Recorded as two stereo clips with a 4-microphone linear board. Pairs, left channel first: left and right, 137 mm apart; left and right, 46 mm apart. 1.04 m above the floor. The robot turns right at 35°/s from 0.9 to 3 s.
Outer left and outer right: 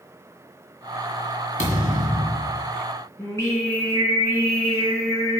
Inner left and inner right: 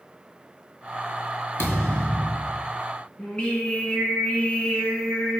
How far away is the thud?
About 2 m.